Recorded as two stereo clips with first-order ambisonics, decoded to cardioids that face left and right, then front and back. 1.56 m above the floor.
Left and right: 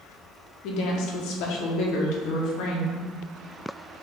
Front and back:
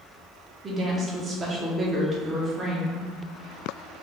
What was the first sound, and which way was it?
A woman speaking, 110° left.